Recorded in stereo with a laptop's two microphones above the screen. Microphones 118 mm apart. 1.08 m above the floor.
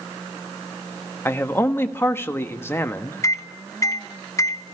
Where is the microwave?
25° left (ahead or behind), 0.7 m.